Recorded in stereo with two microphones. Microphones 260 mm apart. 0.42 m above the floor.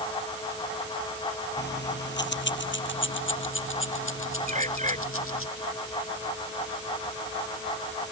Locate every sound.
1.6 s keys jangling: 40° left (ahead or behind); by 5.5 s 55° left (ahead or behind)
4.5 s a bird: 25° right (ahead or behind)